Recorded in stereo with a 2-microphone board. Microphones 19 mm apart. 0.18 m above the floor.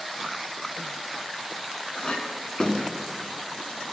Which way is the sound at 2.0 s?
45° left (ahead or behind).